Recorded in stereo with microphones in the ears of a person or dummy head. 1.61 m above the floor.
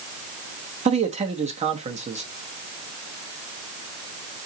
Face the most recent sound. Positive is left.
turn(degrees=-35)  # may be behind; listen again after turning